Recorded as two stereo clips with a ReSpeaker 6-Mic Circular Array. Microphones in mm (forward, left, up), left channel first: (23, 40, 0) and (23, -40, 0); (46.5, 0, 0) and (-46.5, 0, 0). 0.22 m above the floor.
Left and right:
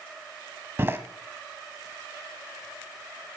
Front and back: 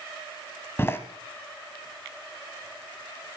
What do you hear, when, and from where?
0.8 s a door slam: 50° right, 1.3 m